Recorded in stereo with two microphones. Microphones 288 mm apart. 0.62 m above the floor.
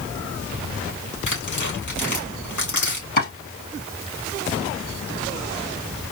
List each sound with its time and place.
1.3 s tearing paper: 75° left (ahead or behind), 3 m
3.2 s chopping: 80° left, 3 m